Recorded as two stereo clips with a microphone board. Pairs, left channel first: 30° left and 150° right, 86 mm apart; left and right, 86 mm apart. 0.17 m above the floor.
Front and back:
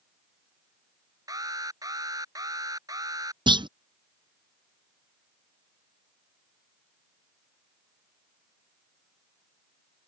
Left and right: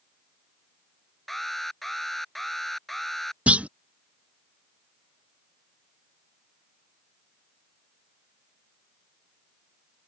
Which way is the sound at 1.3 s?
Straight behind.